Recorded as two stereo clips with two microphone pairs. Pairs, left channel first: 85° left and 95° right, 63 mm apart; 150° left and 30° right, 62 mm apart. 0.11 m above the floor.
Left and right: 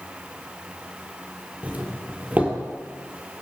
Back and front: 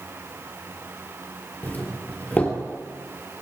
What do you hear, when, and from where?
1.6 s a doorbell: 155° right, 3 m